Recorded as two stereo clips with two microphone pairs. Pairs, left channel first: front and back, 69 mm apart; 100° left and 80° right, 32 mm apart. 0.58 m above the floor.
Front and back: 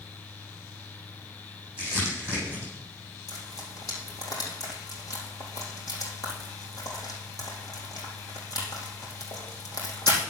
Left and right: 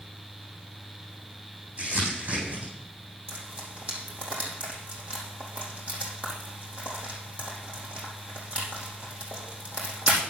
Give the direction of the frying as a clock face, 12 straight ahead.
1 o'clock.